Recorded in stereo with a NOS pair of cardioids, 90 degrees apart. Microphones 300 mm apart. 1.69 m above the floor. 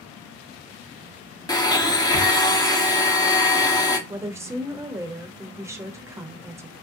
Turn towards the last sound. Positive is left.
turn(degrees=-10)